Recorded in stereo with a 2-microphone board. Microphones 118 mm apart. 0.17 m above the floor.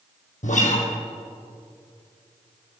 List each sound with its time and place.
0.4 s a guitar: 80° left, 2.5 m